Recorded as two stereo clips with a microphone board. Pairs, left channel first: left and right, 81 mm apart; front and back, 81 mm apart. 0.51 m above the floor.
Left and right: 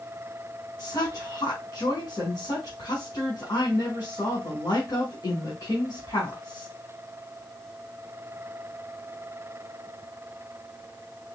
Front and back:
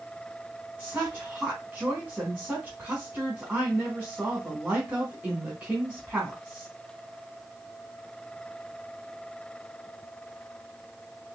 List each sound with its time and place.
0.8 s a woman speaking: 115° left, 1.6 m